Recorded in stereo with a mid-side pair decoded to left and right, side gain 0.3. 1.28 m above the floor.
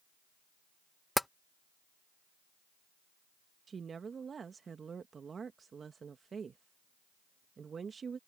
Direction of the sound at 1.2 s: 10° left.